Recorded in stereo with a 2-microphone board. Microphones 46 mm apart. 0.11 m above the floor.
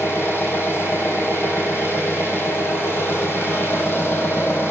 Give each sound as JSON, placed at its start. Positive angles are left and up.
{"t": 0.0, "sound": "an engine running", "side_deg": 50, "distance_m": 1.6}